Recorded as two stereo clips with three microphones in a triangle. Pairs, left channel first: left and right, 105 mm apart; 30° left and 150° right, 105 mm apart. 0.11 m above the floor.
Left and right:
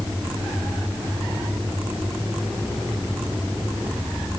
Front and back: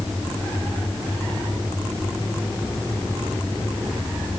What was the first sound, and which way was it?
Only background noise.